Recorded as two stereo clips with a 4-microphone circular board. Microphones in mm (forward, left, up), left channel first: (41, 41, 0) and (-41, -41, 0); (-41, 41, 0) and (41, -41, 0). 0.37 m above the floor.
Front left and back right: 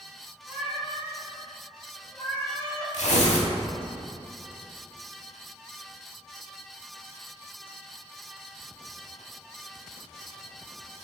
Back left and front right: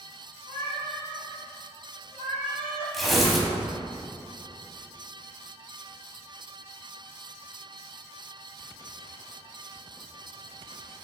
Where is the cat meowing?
155° left, 1.2 m; by 3.0 s 115° left, 2.5 m.